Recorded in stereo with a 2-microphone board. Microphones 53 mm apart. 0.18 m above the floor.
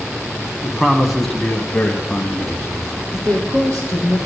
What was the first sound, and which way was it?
A man speaking, 10° right (ahead or behind).